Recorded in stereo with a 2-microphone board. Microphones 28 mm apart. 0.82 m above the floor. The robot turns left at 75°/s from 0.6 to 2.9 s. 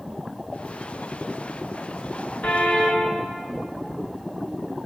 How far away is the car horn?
About 5.5 m.